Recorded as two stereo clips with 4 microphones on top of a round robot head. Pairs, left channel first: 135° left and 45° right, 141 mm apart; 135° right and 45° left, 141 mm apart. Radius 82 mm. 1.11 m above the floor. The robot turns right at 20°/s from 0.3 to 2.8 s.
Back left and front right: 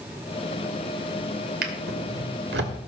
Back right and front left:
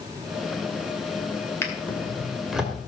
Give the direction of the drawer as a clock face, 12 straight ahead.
2 o'clock.